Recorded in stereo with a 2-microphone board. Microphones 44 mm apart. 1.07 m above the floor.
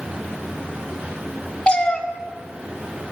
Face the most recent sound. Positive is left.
turn(degrees=20)  # may be behind; listen again after turning